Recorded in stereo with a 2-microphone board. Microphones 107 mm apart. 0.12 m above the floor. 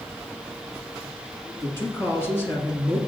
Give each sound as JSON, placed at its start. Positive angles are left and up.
{"t": 1.6, "sound": "a man speaking", "side_deg": 20, "distance_m": 1.9}